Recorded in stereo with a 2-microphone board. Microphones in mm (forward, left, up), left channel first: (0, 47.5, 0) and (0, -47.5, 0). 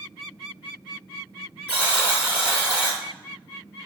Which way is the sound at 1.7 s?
15° right (ahead or behind).